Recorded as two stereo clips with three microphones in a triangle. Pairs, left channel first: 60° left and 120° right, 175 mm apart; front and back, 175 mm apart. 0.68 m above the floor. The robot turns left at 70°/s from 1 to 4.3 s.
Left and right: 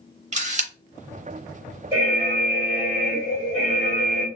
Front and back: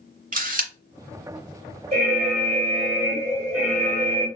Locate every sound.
0.3 s a camera shutter: 155° right, 0.6 m
1.9 s an alarm: 160° right, 1.9 m; by 4.3 s 35° left, 1.9 m